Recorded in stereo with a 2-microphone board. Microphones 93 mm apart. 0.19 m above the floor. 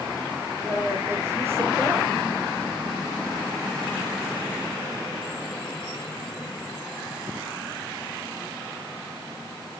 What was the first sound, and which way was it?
A woman speaking, 30° right (ahead or behind).